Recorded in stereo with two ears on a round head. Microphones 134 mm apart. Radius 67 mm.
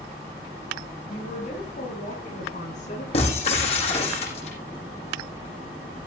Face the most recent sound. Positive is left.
turn(degrees=45)  # may be behind; listen again after turning